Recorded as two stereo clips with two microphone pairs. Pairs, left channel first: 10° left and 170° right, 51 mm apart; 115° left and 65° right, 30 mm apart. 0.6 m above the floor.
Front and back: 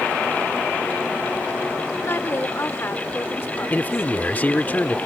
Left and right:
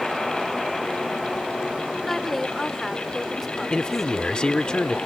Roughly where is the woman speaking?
Ahead left.